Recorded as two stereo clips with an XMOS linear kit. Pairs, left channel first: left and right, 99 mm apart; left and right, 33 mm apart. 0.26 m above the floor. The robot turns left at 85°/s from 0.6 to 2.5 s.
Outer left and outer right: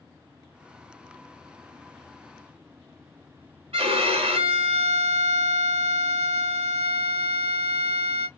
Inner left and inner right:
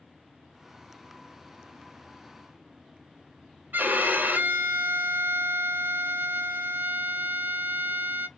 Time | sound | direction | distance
3.7 | a violin | 80° right | 0.6 m